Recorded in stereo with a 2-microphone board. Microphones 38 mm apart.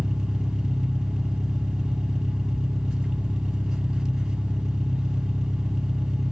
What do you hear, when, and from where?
0.0 s an engine running: 15° right (ahead or behind), 1.5 m